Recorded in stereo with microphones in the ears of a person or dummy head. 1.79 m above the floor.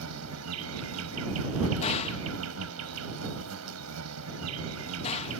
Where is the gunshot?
40° left (ahead or behind).